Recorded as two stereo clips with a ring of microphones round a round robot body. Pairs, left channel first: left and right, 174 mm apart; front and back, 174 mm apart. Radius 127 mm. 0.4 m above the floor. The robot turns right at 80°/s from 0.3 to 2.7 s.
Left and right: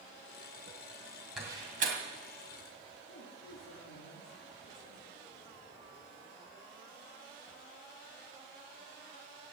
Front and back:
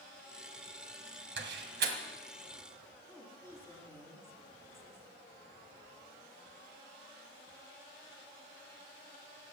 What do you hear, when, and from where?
1.4 s a door slam: straight behind, 1.8 m; by 2.0 s 130° right, 1.8 m
3.1 s a woman speaking: 75° left, 4.5 m